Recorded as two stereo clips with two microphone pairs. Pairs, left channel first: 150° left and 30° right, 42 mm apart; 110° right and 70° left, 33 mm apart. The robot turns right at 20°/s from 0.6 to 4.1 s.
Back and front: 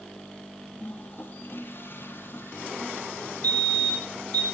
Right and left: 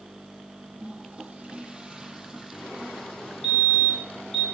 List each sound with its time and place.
0.8 s a toilet flushing: 110° left, 2.5 m; by 4.4 s 175° left, 2.5 m
3.4 s a fire alarm: 155° left, 4.5 m; by 4.5 s 165° left, 4.5 m